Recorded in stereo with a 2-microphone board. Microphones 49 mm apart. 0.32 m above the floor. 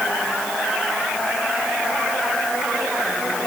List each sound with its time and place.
Only background noise.